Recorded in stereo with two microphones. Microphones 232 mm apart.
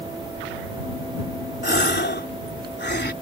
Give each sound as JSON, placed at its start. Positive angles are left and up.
{"t": 1.6, "sound": "a gasp", "side_deg": 50}